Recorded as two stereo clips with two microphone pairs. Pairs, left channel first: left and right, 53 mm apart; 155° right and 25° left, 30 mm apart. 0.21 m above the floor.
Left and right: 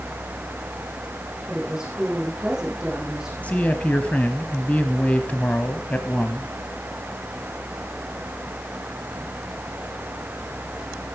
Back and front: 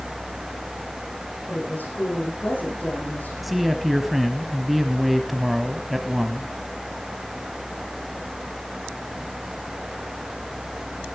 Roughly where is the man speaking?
Left.